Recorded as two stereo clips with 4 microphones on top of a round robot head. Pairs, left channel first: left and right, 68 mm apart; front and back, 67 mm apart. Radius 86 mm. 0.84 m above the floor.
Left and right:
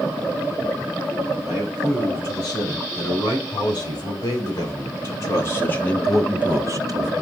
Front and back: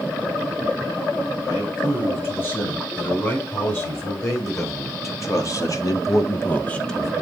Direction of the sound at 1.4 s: 50° left.